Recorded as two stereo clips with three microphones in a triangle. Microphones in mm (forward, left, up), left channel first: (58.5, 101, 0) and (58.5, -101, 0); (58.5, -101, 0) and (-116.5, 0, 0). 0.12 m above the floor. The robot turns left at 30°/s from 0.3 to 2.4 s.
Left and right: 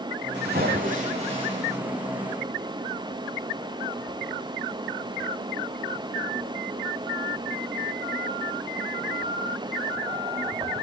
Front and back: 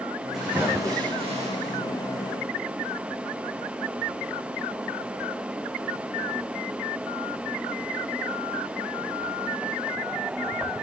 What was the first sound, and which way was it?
A splash, 120° right.